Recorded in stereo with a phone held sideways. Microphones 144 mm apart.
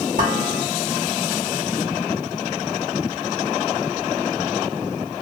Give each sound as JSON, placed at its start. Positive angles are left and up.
{"t": 0.2, "sound": "dishes clattering", "side_deg": -65, "distance_m": 1.3}